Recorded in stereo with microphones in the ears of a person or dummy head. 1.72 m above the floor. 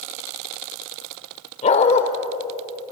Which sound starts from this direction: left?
A dog barking, at 1.6 s.